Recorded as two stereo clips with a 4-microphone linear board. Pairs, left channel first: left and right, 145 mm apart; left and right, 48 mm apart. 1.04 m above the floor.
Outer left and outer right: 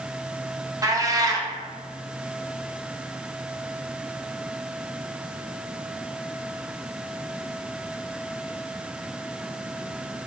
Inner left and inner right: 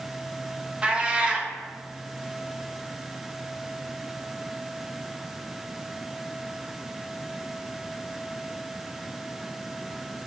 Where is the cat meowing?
25° right (ahead or behind), 0.6 m.